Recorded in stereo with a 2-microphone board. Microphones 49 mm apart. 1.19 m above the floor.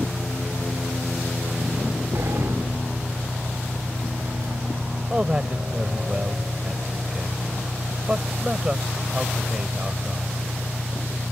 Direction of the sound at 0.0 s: 55° right (ahead or behind).